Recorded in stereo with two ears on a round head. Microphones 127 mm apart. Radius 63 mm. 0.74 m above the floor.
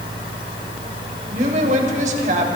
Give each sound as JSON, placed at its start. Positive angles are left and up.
{"t": 1.3, "sound": "a woman speaking", "side_deg": -55, "distance_m": 4.0}